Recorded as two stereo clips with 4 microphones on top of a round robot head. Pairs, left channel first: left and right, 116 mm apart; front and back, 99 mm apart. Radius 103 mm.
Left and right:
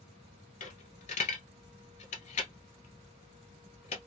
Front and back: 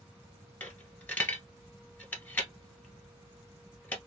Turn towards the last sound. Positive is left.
turn(degrees=70)